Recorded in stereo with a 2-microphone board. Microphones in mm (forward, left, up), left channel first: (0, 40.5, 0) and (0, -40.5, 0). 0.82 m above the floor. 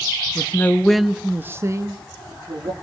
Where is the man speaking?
35° left (ahead or behind), 0.7 m; by 2.7 s 55° right (ahead or behind), 1.3 m.